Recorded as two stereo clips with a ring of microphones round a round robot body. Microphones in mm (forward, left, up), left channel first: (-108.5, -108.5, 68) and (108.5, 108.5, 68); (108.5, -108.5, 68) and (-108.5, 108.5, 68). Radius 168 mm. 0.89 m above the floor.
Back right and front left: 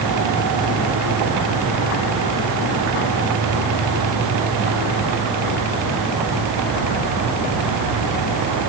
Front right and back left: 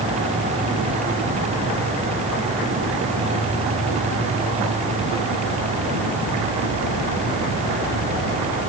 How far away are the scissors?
I don't hear scissors.